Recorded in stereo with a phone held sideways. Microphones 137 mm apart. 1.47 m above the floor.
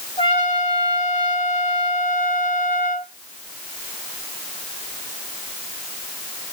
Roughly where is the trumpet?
Left.